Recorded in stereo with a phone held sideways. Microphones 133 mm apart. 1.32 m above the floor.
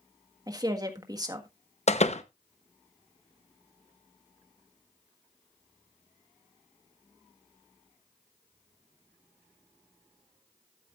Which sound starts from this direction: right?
A woman speaking, at 0.5 s.